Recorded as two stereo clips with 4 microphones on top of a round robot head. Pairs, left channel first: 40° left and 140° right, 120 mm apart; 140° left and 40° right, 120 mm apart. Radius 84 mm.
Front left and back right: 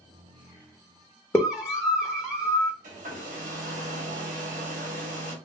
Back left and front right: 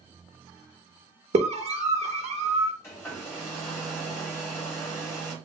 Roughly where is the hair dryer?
Behind right.